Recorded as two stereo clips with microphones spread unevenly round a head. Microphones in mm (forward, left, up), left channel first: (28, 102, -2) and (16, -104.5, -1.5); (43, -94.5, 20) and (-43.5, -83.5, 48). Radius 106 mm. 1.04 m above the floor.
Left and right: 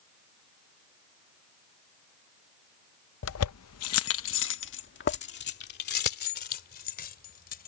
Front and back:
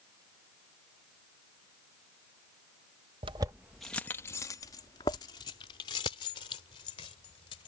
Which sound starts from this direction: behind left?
Keys jangling, at 3.2 s.